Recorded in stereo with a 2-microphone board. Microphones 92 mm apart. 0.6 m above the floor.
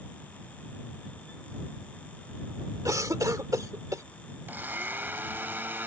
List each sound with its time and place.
2.9 s a cough: 40° right (ahead or behind)
4.5 s a blender: 20° right (ahead or behind)